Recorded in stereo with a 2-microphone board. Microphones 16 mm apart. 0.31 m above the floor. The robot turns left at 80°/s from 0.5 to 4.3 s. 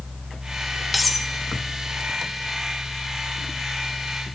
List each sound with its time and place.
0.9 s cutlery clinking: 5° right (ahead or behind), 0.8 m; by 1.3 s 5° left (ahead or behind), 0.8 m